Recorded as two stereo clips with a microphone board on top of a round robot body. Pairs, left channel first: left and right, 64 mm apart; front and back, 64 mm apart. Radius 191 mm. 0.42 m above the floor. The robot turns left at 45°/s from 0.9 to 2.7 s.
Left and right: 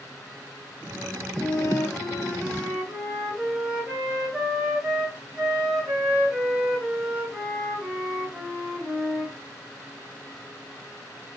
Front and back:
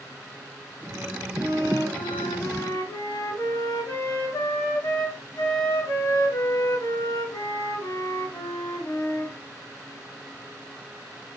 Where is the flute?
55° left, 2 m; by 9.3 s 5° right, 2 m.